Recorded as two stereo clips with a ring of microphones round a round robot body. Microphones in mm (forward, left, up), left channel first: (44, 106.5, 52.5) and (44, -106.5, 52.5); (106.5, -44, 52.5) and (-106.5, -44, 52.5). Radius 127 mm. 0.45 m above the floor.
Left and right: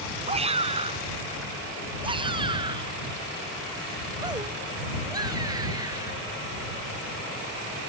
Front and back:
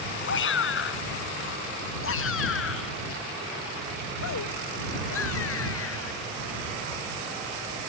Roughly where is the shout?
Ahead right.